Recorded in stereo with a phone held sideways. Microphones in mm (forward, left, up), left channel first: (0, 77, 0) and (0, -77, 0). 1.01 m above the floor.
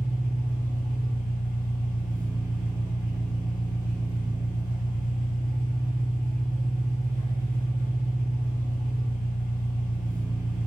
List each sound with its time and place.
0.0 s an engine running: 60° left (ahead or behind), 0.9 m